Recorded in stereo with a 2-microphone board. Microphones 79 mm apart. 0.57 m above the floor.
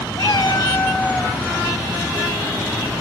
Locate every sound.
0.2 s a cat meowing: 60° left (ahead or behind), 1.0 m; by 1.4 s 5° left (ahead or behind), 1.3 m